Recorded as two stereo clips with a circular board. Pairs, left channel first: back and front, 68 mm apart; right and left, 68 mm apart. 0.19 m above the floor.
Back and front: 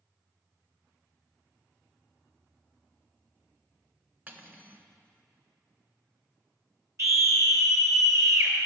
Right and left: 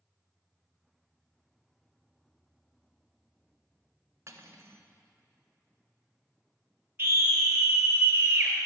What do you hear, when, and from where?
4.3 s cutlery clinking: 55° left, 1.1 m
7.0 s a scream: 35° left, 3.5 m